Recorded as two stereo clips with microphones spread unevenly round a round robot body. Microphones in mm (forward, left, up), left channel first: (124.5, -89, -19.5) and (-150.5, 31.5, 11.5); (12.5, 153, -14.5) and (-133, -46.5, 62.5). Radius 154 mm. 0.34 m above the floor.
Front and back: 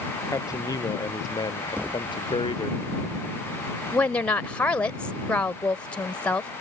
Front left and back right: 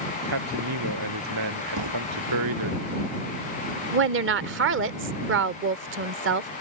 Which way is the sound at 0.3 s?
105° right.